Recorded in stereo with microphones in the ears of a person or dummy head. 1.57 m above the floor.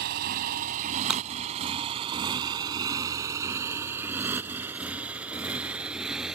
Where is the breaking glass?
5° right (ahead or behind).